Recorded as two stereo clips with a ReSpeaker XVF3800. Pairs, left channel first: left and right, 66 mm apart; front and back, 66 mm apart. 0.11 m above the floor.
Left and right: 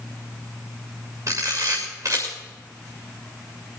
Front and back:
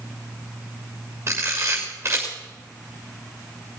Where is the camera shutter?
130° right, 7 m.